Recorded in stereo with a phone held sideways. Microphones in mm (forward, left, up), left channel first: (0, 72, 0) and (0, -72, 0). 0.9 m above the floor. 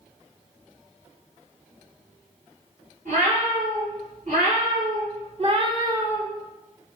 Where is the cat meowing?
75° right (ahead or behind), 2.0 m; by 6.3 s centre (ahead or behind), 0.5 m.